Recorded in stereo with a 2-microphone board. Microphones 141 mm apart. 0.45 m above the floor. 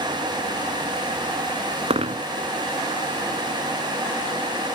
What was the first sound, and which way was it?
A dropped coin, 45° right (ahead or behind).